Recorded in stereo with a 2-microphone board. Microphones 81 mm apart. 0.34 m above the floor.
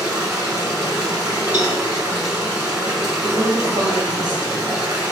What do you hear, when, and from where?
0.0 s running water: 40° right (ahead or behind), 2 m
1.5 s a cowbell: 30° right (ahead or behind), 3 m
3.2 s a woman speaking: 55° right (ahead or behind), 2 m